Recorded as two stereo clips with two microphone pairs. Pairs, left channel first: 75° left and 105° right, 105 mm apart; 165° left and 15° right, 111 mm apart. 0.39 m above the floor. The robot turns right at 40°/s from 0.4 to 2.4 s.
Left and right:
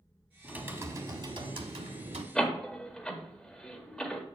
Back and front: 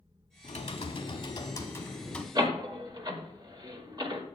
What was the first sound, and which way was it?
Typing on a keyboard, 175° left.